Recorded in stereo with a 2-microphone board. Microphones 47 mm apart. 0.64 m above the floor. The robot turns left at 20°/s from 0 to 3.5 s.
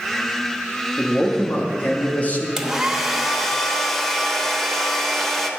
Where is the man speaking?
25° left (ahead or behind), 0.9 m; by 2.5 s 35° left (ahead or behind), 0.9 m.